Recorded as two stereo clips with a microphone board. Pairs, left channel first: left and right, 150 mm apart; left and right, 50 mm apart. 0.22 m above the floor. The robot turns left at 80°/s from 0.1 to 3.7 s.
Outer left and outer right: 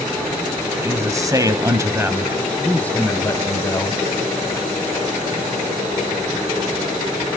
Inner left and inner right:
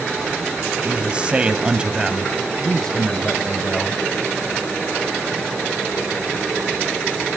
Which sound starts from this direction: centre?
A man speaking, at 0.8 s.